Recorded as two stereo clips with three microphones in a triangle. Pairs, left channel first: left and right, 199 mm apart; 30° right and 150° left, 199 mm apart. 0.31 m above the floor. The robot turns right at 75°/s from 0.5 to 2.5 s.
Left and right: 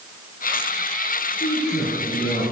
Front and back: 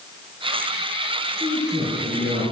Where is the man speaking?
65° left, 4.5 m; by 2.4 s 145° left, 4.5 m.